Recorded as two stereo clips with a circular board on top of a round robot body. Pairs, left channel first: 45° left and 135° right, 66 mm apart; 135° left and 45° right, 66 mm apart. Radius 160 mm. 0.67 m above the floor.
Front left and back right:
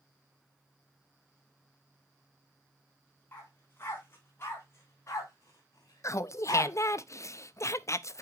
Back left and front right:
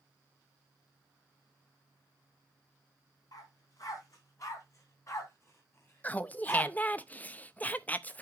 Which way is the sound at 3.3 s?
105° left.